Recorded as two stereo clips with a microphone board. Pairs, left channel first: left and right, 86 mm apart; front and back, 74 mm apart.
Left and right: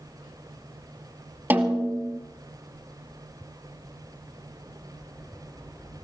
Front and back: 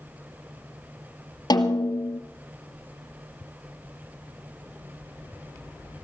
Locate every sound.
1.5 s a snare drum: 20° right, 2 m